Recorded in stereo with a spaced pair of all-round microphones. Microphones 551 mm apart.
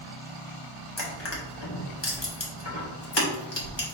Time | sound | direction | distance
1.0 | crushing | 50° left (ahead or behind) | 1.3 m